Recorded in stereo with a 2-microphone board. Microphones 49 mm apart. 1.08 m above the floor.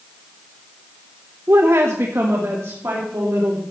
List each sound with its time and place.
1.5 s a woman speaking: 50° right (ahead or behind), 0.6 m; by 3.6 s 65° right (ahead or behind), 3.5 m